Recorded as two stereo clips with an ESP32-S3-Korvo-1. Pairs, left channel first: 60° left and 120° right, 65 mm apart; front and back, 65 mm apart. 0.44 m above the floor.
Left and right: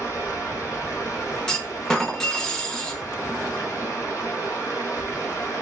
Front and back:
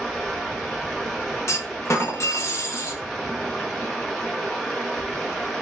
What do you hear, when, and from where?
0.0 s running water: 75° left, 0.8 m
1.5 s a clunk: 15° right, 0.5 m